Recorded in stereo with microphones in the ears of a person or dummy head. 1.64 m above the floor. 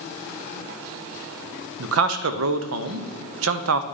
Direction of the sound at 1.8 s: 80° right.